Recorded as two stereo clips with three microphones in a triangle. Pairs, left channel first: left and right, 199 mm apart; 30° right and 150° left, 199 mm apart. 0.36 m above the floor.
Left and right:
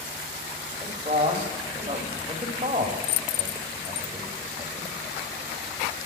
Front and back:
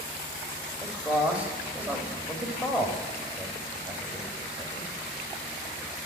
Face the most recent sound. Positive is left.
turn(degrees=-130)